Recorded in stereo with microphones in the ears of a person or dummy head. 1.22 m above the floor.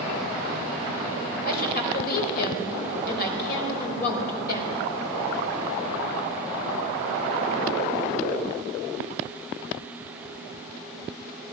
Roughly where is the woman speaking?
Left.